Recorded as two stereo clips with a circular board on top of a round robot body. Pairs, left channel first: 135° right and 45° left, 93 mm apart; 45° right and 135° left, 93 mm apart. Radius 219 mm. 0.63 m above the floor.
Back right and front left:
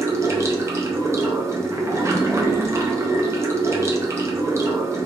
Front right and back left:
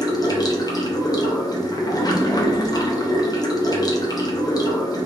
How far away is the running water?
About 0.9 m.